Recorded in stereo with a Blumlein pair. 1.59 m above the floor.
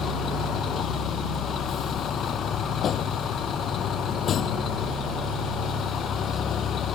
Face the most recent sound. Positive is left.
turn(degrees=25)